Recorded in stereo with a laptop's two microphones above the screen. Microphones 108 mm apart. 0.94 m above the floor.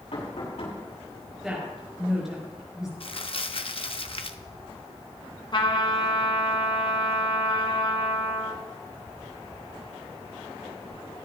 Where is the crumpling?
55° left (ahead or behind), 0.7 m.